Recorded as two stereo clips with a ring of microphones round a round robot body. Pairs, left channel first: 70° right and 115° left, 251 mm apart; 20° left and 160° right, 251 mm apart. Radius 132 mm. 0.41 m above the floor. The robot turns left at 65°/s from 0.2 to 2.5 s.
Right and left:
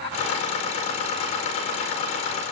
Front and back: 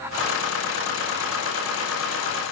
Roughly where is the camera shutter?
I don't hear a camera shutter.